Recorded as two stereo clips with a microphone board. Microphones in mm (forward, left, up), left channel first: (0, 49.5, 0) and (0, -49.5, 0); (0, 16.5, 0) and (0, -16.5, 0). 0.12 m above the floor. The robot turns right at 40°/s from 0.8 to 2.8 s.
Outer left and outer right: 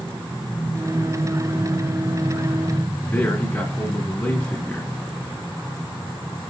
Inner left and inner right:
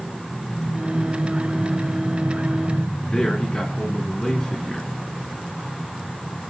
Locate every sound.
3.0 s a man speaking: 20° left (ahead or behind), 1.4 m